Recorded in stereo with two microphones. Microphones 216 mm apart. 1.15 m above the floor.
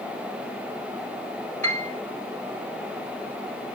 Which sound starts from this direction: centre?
A piano, at 1.6 s.